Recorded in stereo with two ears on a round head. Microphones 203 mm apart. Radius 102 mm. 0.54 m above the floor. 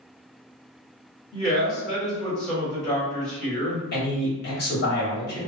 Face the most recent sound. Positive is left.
turn(degrees=45)  # may be behind; listen again after turning